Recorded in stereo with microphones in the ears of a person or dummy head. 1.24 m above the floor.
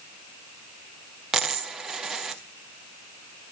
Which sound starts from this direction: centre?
A dropped coin, at 1.3 s.